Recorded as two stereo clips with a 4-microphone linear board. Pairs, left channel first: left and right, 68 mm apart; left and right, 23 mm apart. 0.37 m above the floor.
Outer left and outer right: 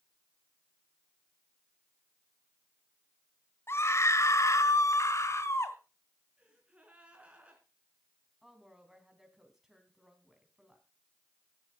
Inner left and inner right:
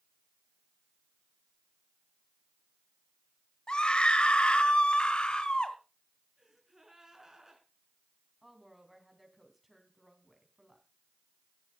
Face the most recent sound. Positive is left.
turn(degrees=-5)  # may be behind; listen again after turning